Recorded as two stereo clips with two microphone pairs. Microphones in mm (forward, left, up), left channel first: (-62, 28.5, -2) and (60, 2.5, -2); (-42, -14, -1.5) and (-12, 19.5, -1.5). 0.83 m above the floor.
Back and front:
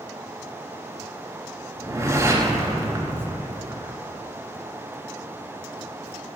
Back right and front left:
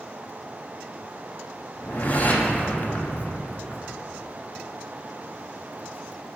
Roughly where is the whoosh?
Right.